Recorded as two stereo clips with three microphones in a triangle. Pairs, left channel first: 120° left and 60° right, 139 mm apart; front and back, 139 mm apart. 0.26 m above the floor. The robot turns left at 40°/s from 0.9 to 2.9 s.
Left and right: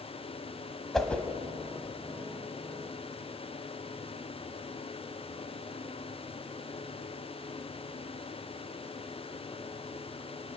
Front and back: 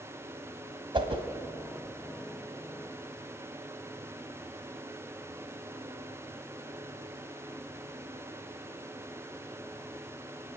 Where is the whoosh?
155° right, 1.6 m; by 1.2 s 165° right, 1.6 m.